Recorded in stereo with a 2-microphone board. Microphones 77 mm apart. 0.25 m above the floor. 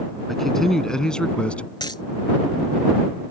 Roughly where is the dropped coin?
Left.